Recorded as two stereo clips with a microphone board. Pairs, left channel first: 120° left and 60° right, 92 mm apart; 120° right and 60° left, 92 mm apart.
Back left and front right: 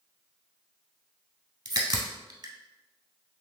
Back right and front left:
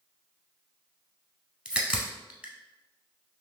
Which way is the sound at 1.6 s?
20° right.